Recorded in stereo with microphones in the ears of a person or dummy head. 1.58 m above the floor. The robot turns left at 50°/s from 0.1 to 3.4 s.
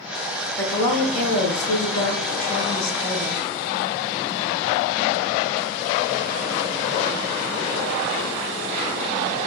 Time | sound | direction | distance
0.6 | a woman speaking | 175° left | 1.4 m